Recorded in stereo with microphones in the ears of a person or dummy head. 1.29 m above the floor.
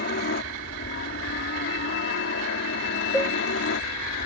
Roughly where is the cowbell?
Centre.